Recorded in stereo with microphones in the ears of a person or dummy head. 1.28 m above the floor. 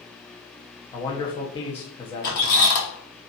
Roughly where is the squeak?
Left.